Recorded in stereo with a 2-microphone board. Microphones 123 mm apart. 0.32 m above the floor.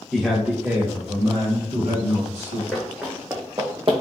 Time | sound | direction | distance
0.1 | a man speaking | centre (ahead or behind) | 0.9 m
2.7 | running footsteps | centre (ahead or behind) | 1.6 m